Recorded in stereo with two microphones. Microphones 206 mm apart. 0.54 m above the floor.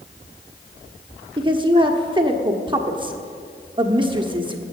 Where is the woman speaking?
25° right (ahead or behind), 1.1 m.